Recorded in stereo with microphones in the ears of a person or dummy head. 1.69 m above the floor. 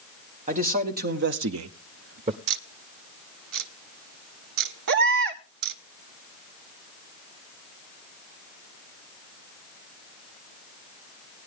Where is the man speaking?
35° right (ahead or behind), 1.4 m; by 2.4 s 30° right (ahead or behind), 0.6 m.